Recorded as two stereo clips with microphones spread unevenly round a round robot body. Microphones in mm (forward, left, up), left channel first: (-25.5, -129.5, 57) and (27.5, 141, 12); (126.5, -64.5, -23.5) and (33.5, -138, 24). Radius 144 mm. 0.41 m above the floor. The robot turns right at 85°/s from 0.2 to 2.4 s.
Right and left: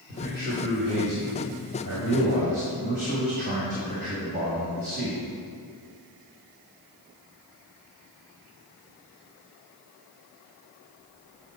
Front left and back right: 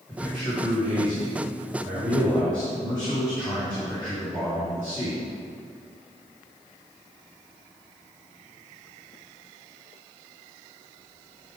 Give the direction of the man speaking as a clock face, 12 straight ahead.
2 o'clock.